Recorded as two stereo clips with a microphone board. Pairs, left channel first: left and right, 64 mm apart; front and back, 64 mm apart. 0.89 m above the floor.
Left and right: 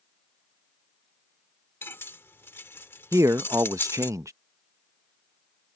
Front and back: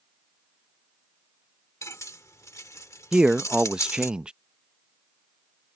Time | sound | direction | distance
1.8 | cutlery clinking | 40° left | ?
3.1 | a man speaking | 105° right | ?